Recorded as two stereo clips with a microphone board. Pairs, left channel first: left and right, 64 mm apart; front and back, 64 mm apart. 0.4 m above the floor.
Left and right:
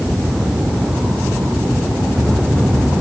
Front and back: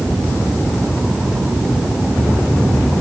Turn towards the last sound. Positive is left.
No sound to turn to.